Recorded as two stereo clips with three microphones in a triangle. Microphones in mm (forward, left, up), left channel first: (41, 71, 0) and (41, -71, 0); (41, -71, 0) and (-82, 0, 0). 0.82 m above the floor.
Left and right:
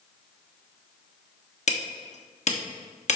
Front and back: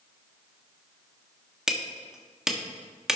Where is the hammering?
65° left, 1.4 m.